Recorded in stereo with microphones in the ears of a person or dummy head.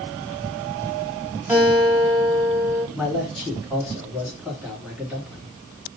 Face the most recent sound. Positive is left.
turn(degrees=-10)  # may be behind; listen again after turning